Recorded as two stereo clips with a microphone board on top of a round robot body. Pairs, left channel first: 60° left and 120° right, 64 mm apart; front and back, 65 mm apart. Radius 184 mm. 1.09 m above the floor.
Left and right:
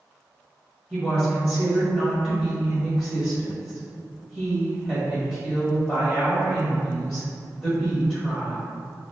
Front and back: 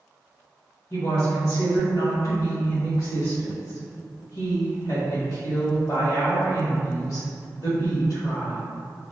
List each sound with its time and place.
0.9 s a woman speaking: 35° right, 1.6 m